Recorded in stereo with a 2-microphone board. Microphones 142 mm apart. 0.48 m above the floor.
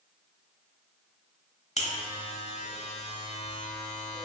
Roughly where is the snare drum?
No snare drum in this recording.